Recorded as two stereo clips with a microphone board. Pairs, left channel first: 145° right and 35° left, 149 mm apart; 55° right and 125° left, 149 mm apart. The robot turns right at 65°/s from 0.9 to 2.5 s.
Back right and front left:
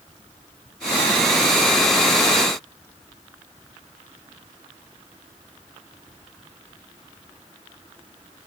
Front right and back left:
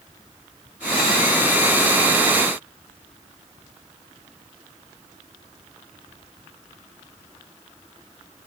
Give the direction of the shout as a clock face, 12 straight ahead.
No shout in this recording.